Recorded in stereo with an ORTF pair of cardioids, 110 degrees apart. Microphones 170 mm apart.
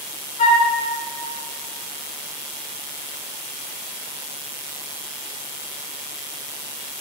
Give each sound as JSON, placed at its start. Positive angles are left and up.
{"t": 0.4, "sound": "a flute", "azimuth_deg": 45, "distance_m": 1.6}